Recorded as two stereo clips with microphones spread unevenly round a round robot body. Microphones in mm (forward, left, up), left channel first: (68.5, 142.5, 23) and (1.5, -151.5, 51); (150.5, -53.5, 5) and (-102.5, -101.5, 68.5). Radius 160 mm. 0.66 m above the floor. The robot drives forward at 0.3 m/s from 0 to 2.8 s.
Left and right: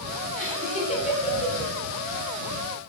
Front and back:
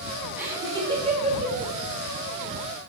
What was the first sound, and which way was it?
Laughter, 85° left.